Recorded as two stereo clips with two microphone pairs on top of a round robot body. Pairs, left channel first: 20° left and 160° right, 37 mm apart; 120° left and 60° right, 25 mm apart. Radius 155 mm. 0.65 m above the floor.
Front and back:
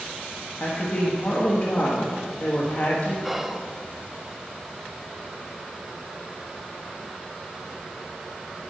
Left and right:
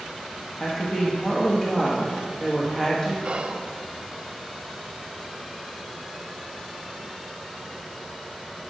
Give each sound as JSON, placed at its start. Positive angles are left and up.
{"t": 0.6, "sound": "a woman speaking", "azimuth_deg": 50, "distance_m": 1.5}
{"t": 3.2, "sound": "whispering", "azimuth_deg": -70, "distance_m": 0.9}